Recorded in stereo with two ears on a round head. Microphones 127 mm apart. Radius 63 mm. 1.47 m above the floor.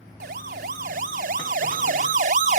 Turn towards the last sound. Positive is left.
turn(degrees=-60)  # may be behind; listen again after turning